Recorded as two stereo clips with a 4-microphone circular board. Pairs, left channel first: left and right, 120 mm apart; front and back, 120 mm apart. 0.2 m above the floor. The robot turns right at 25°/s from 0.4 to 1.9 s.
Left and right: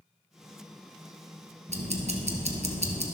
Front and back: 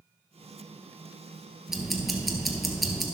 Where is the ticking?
95° right, 1.2 m; by 3.0 s 90° right, 1.2 m.